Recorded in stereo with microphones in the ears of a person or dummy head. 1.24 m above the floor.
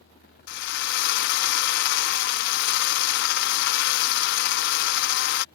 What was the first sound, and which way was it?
A drill, 50° left (ahead or behind).